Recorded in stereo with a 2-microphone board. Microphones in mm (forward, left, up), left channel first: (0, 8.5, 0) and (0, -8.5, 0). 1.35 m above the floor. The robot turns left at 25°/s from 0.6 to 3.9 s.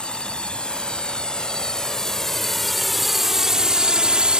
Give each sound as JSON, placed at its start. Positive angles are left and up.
{"t": 0.0, "sound": "a drone", "side_deg": 85}